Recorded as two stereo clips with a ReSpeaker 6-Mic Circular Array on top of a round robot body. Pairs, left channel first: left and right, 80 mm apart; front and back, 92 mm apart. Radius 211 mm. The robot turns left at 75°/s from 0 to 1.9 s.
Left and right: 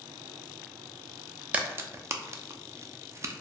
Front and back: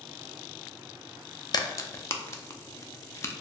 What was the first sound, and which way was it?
A crack, 20° right.